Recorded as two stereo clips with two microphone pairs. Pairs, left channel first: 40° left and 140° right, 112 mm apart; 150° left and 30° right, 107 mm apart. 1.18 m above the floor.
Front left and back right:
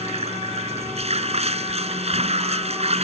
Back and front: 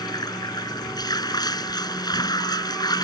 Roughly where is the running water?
Behind right.